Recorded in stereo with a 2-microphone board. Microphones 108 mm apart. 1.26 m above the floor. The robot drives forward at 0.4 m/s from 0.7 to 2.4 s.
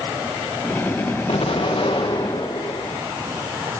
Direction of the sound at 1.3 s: 60° left (ahead or behind).